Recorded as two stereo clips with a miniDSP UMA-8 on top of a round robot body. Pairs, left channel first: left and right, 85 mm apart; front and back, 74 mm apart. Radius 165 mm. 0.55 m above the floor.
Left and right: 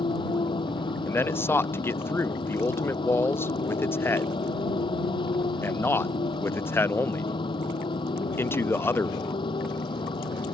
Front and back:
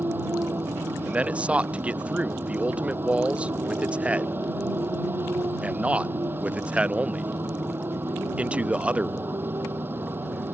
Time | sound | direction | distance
0.0 | a motorcycle | 115° left | ?
1.1 | a man speaking | 125° left | ?